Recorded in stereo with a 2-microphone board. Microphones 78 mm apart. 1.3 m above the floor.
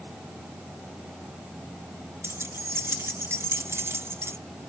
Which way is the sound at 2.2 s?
30° right (ahead or behind).